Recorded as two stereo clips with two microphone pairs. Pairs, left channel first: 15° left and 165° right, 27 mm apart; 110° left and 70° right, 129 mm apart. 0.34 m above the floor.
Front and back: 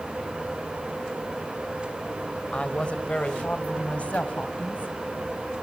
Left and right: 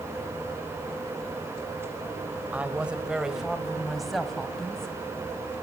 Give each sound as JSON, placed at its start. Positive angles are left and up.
{"t": 2.5, "sound": "a woman speaking", "azimuth_deg": 5, "distance_m": 1.7}